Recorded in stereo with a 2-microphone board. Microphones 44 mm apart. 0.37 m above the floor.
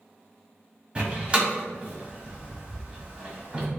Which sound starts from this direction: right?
A door slam, at 0.9 s.